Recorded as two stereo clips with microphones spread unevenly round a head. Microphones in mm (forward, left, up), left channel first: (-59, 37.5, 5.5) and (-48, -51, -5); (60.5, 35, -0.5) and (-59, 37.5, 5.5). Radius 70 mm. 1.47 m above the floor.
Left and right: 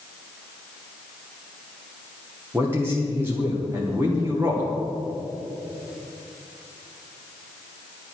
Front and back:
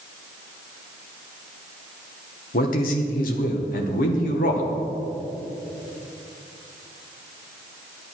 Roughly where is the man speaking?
Ahead.